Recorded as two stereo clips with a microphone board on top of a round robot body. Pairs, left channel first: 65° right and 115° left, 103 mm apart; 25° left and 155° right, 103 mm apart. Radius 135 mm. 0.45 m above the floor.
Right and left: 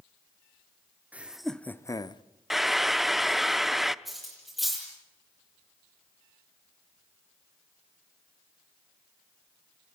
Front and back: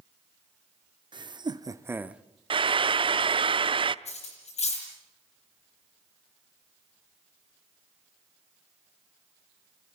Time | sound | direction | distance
1.1 | laughter | 175° right | 1.1 m
2.5 | frying | 160° right | 0.6 m
4.0 | cutlery clinking | 25° left | 9 m